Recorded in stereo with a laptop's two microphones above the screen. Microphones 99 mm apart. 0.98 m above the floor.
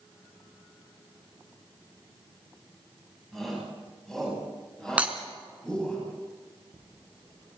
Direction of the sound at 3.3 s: 5° left (ahead or behind).